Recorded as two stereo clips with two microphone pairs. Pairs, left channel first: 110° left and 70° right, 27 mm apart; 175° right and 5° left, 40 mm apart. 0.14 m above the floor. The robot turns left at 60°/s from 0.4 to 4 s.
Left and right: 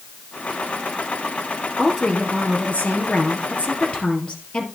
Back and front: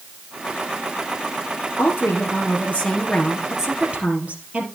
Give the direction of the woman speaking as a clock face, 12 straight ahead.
6 o'clock.